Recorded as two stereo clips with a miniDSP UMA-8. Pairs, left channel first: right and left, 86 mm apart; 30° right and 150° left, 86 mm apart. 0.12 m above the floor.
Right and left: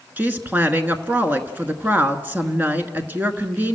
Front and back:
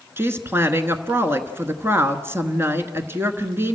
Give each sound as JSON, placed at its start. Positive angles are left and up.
{"t": 0.2, "sound": "a woman speaking", "azimuth_deg": 135, "distance_m": 1.2}